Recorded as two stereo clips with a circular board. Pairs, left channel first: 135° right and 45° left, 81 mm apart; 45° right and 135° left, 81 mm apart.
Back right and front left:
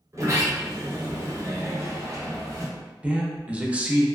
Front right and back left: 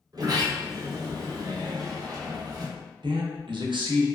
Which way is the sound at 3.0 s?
120° left.